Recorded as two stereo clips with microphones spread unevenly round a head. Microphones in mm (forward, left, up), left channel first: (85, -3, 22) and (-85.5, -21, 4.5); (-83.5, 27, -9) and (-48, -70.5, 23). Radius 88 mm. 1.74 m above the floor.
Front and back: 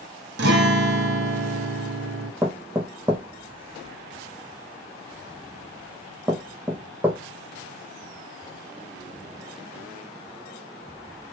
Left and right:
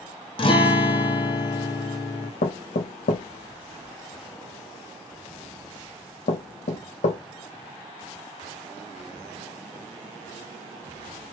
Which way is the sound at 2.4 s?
105° left.